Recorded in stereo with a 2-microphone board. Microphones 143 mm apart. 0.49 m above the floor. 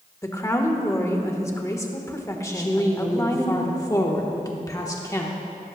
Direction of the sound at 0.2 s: 20° left (ahead or behind).